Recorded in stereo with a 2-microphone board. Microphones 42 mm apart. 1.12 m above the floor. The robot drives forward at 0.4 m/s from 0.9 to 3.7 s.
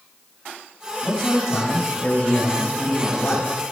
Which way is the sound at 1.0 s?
25° left (ahead or behind).